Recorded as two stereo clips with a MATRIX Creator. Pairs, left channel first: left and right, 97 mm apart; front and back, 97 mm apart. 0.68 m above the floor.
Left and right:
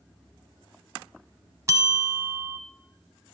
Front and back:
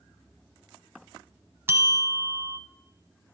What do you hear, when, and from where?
1.7 s a bell: 130° right, 0.6 m